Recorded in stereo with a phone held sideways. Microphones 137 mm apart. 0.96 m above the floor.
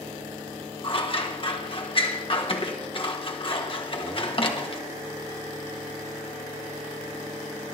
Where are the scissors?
40° left (ahead or behind), 1.3 m.